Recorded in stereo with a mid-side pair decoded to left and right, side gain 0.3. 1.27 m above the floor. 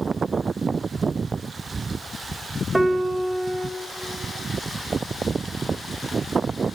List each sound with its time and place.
2.7 s a piano: 20° right, 0.8 m